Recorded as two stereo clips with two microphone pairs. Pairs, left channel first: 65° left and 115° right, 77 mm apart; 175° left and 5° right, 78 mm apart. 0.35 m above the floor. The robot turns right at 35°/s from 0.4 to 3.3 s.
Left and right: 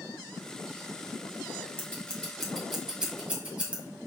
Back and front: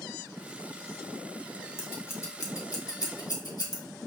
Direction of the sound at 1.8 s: 130° left.